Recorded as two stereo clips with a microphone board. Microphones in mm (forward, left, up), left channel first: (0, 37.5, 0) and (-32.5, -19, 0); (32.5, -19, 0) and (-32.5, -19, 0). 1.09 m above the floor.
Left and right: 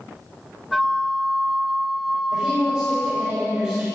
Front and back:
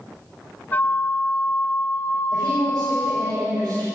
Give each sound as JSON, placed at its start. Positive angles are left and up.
{"t": 0.7, "sound": "a flute", "azimuth_deg": -30, "distance_m": 0.5}
{"t": 2.3, "sound": "a woman speaking", "azimuth_deg": 160, "distance_m": 6.0}